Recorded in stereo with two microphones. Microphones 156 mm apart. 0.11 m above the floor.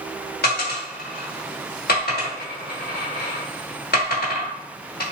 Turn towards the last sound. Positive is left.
turn(degrees=80)